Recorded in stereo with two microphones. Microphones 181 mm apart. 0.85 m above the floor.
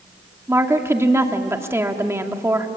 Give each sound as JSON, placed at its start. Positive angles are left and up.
{"t": 0.5, "sound": "a woman speaking", "side_deg": -15, "distance_m": 2.0}